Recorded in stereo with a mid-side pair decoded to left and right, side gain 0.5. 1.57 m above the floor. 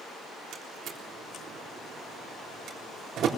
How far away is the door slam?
About 3.5 m.